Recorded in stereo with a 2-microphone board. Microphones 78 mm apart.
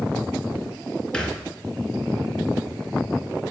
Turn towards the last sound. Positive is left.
turn(degrees=10)  # may be behind; listen again after turning